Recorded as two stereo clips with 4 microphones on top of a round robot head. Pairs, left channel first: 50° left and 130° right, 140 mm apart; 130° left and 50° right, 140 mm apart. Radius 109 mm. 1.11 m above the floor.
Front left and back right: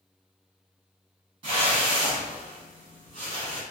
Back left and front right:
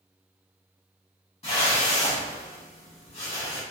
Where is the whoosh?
Straight behind, 1.6 m.